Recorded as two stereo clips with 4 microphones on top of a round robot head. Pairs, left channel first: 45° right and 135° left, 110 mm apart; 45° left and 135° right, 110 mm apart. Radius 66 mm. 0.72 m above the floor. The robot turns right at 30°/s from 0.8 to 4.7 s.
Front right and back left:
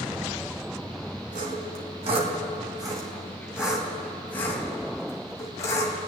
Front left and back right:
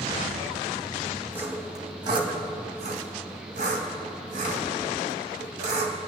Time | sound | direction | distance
1.3 | sawing | 150° left | 2.5 m